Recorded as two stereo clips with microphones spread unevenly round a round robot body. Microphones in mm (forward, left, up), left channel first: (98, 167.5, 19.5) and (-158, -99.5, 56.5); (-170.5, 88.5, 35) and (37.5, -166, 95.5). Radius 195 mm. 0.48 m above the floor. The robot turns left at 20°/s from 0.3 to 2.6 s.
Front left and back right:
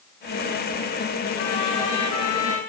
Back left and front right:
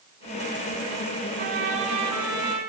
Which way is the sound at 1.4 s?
15° left.